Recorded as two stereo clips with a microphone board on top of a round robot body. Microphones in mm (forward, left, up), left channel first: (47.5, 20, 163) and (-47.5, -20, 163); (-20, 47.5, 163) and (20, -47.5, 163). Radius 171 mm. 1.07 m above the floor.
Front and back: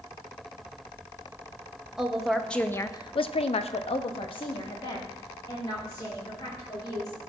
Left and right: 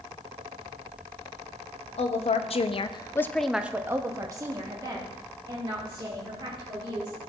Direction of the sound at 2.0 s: 120° left.